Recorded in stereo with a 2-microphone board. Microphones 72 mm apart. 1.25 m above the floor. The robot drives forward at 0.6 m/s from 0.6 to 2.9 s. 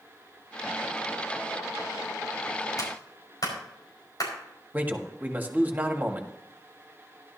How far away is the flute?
No flute in this recording.